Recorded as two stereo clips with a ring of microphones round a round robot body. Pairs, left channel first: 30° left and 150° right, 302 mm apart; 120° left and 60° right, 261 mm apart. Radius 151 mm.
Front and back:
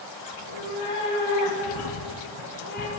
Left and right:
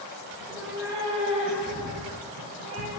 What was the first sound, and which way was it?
A cat meowing, 25° left.